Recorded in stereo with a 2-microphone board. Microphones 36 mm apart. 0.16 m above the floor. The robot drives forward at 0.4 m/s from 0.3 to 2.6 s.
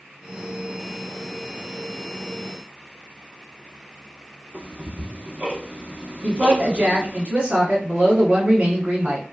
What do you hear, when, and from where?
4.5 s ticking: 45° right (ahead or behind), 1.4 m
6.2 s a woman speaking: 25° right (ahead or behind), 1.3 m